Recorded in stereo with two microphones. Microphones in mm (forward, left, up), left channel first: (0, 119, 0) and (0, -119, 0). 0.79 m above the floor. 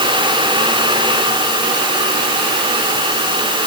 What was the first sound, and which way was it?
Only background noise.